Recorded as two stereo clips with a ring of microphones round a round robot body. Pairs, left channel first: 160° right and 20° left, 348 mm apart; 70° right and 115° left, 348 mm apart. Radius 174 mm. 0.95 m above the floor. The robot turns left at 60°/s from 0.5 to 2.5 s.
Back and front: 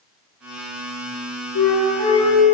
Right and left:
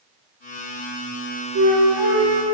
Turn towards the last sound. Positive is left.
turn(degrees=105)